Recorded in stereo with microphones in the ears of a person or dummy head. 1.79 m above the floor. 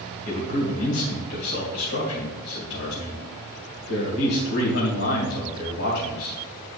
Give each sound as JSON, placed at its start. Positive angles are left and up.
{"t": 0.2, "sound": "a man speaking", "side_deg": 65, "distance_m": 2.5}